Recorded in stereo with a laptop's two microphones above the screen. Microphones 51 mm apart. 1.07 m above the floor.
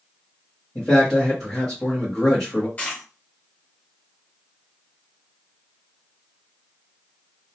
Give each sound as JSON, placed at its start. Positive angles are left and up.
{"t": 0.8, "sound": "a man speaking", "side_deg": 10, "distance_m": 0.9}
{"t": 2.8, "sound": "a dropped coin", "side_deg": 25, "distance_m": 1.4}